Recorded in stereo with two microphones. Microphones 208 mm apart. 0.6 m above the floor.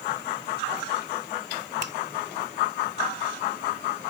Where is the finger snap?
65° right (ahead or behind).